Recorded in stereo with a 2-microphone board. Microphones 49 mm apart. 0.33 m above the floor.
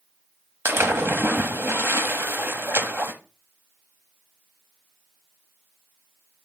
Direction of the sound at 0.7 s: 60° right (ahead or behind).